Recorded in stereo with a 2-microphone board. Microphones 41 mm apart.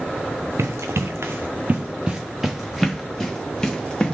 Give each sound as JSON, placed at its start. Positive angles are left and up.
{"t": 0.6, "sound": "running footsteps", "side_deg": -80, "distance_m": 0.8}